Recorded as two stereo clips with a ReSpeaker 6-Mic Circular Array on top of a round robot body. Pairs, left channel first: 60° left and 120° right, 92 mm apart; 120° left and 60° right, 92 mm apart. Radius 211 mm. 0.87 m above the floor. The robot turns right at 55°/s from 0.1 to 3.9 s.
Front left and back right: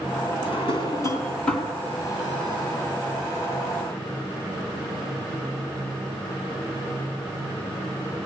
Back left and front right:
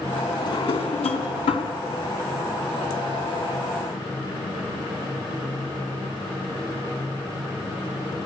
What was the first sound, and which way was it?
A drawer, 80° left.